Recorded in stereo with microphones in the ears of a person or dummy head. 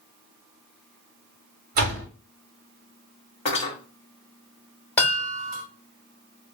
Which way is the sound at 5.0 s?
10° left (ahead or behind).